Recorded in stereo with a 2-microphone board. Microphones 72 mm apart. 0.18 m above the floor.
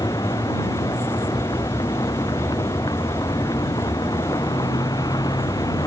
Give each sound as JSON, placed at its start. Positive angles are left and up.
{"t": 0.0, "sound": "a vehicle", "side_deg": 65}